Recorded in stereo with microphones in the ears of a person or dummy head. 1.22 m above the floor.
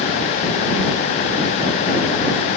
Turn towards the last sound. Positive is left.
No sound to turn to.